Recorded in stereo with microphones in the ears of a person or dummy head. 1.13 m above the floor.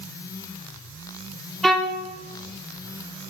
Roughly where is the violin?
Centre.